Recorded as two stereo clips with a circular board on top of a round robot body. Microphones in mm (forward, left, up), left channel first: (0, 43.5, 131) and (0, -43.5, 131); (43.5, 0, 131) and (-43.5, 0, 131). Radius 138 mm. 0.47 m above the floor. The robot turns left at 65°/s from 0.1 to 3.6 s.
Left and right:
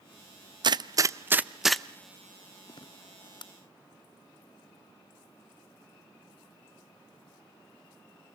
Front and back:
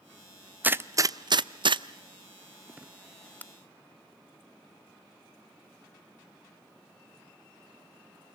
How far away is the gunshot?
About 0.7 m.